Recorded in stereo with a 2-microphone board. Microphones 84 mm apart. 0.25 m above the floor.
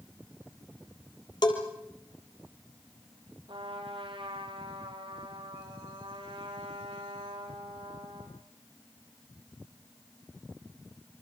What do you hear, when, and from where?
1.4 s a bell: 55° left (ahead or behind), 3.5 m
3.5 s a trumpet: 80° right, 4.5 m